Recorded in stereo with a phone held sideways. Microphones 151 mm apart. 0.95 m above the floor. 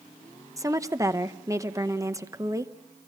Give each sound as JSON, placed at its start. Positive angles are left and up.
{"t": 0.6, "sound": "a woman speaking", "side_deg": -20, "distance_m": 0.8}